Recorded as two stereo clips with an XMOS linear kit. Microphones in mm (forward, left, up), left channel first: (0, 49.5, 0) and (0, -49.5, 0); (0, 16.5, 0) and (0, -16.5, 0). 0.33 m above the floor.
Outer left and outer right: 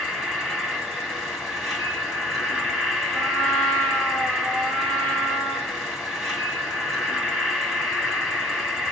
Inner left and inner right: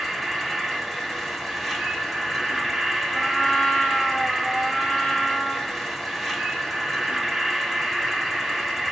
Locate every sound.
0.0 s an insect: centre (ahead or behind), 1.2 m
3.1 s a trumpet: 10° left (ahead or behind), 1.7 m